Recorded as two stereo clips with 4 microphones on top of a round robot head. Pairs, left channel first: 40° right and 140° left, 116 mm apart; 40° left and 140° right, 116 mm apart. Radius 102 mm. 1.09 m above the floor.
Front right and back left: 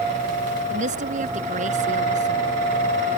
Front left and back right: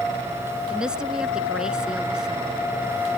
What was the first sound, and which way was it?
A woman speaking, 135° left.